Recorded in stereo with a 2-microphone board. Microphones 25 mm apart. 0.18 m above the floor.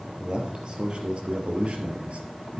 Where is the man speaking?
30° right (ahead or behind), 3.5 m; by 2.6 s 60° right (ahead or behind), 3 m.